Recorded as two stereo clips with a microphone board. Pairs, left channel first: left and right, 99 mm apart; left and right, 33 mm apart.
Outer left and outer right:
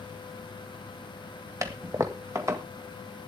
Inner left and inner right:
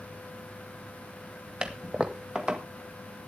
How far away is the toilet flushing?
About 1.7 m.